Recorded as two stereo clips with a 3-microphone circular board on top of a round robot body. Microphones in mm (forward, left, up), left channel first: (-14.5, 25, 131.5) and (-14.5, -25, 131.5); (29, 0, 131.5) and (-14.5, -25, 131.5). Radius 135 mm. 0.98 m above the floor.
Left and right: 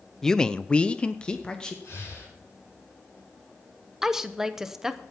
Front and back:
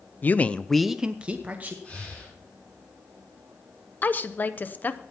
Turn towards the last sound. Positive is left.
turn(degrees=-10)